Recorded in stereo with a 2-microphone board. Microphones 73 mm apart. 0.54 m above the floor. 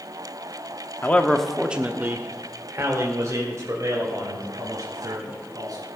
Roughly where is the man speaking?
Left.